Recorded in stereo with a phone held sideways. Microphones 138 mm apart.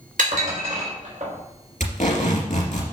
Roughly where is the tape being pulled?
Left.